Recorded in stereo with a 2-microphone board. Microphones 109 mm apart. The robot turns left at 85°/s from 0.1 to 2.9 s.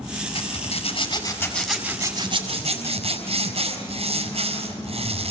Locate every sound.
0.3 s a zipper: 115° left, 4.5 m; by 5.3 s 100° right, 4.5 m